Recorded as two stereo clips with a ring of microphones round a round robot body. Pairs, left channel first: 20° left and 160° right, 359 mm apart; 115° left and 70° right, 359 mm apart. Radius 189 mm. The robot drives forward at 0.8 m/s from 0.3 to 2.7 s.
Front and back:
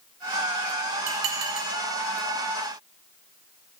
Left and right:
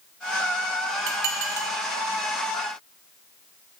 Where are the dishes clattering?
105° right, 0.7 m; by 1.7 s 135° right, 1.0 m.